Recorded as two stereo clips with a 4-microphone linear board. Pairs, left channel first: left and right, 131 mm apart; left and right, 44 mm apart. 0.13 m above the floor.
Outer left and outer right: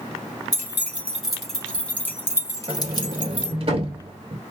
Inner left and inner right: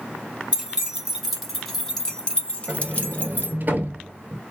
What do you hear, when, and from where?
0.5 s keys jangling: 15° right (ahead or behind), 1.4 m; by 3.5 s 45° left (ahead or behind), 1.4 m
2.7 s a sliding door: 50° right (ahead or behind), 0.6 m